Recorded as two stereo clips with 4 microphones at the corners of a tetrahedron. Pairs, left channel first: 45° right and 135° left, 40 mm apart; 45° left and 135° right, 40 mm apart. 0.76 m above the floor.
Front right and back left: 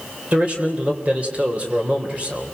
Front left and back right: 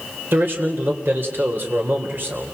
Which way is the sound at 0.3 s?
165° right.